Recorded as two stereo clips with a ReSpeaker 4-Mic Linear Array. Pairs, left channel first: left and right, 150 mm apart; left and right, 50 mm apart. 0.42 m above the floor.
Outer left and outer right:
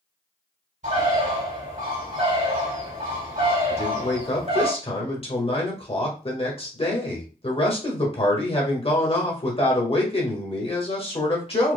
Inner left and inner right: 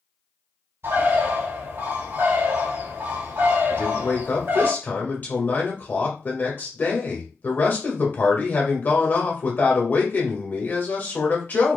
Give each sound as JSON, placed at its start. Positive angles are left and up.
{"t": 0.8, "sound": "a bird", "side_deg": -55, "distance_m": 2.5}
{"t": 3.7, "sound": "a man speaking", "side_deg": 35, "distance_m": 1.4}